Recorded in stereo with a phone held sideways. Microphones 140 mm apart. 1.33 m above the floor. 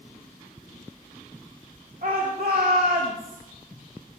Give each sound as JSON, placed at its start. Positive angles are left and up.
{"t": 2.0, "sound": "a shout", "side_deg": -70, "distance_m": 3.5}